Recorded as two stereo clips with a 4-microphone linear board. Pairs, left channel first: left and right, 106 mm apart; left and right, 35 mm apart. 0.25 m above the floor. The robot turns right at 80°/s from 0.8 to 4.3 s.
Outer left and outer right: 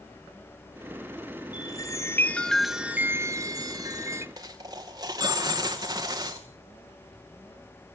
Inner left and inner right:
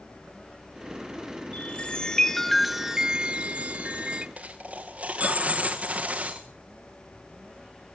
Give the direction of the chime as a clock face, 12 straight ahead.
9 o'clock.